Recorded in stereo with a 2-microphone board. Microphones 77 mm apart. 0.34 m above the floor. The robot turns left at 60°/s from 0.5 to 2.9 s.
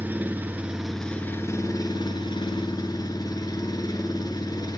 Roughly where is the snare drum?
I don't hear a snare drum.